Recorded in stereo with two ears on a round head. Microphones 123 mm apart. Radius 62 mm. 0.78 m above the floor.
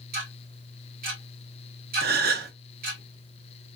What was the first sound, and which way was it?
Ticking, 65° right (ahead or behind).